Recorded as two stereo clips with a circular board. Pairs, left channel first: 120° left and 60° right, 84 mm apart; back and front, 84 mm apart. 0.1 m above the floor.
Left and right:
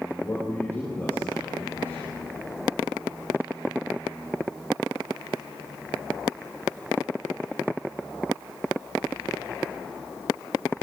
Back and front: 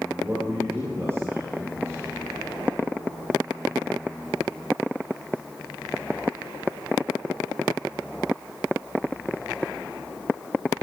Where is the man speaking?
55° left, 5.5 m.